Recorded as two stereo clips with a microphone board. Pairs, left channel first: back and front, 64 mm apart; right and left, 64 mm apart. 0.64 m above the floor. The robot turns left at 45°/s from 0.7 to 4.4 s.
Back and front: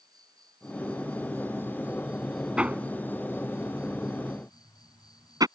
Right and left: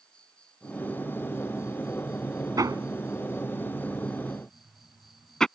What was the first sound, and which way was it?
An insect, 15° right.